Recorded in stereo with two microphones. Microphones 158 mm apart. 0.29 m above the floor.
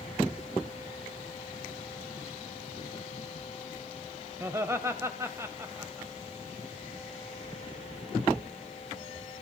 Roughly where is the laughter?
Centre.